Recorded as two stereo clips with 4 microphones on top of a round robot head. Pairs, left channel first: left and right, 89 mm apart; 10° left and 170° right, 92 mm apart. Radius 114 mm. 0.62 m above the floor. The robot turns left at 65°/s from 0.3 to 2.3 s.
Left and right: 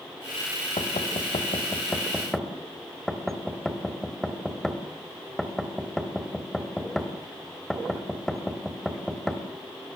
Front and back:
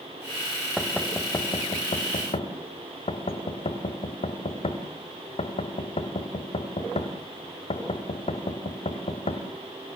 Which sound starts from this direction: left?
Knocking, at 0.8 s.